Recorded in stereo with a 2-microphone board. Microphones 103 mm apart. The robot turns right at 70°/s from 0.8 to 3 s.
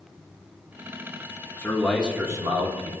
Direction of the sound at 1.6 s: 155° left.